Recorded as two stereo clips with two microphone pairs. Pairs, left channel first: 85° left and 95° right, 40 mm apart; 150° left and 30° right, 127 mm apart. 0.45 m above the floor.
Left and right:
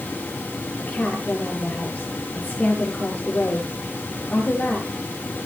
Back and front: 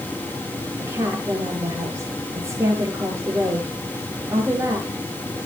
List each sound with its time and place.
0.8 s a woman speaking: 40° left, 8 m